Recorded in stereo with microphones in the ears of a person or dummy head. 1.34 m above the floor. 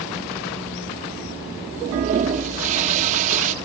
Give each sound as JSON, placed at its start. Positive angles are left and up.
{"t": 1.8, "sound": "a toilet flushing", "side_deg": -40, "distance_m": 1.0}